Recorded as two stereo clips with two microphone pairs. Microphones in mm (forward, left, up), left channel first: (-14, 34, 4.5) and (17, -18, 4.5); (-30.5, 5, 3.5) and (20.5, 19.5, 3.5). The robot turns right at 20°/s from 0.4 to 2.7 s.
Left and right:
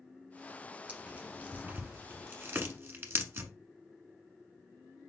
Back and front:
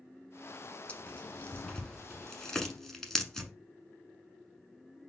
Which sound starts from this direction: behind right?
Tearing paper, at 0.9 s.